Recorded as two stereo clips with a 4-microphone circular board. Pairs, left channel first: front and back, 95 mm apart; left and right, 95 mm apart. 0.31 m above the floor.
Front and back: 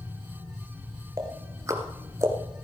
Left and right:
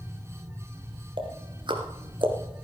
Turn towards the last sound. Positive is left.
turn(degrees=-120)